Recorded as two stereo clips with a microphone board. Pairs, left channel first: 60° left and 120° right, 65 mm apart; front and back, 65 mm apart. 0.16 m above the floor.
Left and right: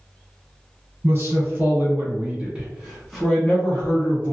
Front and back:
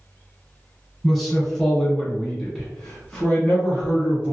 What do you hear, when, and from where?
1.0 s a man speaking: 90° right, 1.6 m; by 4.3 s 50° left, 1.2 m